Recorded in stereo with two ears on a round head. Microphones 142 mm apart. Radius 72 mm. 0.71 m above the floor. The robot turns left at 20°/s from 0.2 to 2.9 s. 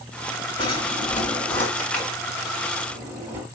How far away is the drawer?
About 3 m.